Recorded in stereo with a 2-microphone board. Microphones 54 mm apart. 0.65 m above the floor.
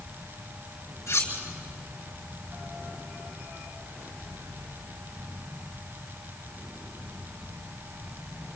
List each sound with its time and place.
1.1 s cutlery clinking: 60° left (ahead or behind), 5.5 m